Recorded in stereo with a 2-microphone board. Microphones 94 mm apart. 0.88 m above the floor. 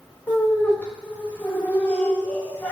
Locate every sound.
0.3 s laughter: 15° left (ahead or behind), 0.9 m